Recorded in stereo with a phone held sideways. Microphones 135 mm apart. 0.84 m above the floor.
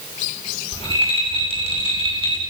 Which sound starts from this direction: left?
A rattle, at 0.7 s.